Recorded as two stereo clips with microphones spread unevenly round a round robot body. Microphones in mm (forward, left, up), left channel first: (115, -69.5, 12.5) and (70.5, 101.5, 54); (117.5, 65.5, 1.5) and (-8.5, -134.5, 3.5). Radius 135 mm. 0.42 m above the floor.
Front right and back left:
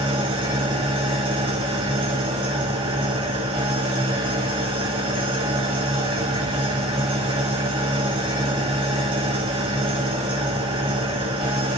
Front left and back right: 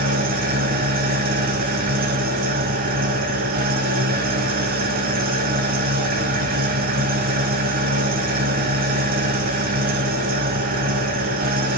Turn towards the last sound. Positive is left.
turn(degrees=175)